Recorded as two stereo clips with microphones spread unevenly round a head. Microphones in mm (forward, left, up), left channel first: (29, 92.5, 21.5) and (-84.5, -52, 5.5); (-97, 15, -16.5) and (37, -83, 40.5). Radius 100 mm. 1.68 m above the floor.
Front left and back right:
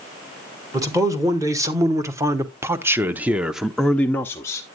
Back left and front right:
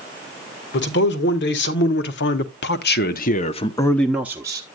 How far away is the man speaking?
About 1.7 m.